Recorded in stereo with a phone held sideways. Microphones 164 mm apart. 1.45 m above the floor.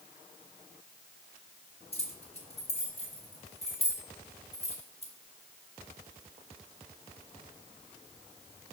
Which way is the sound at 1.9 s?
40° left (ahead or behind).